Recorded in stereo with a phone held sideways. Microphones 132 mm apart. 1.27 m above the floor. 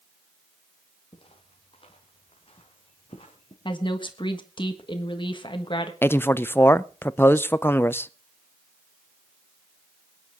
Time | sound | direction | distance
1.1 | footsteps | 45° left (ahead or behind) | 2.5 m
3.6 | a woman speaking | 35° left (ahead or behind) | 1.4 m
6.0 | a man speaking | 15° left (ahead or behind) | 0.5 m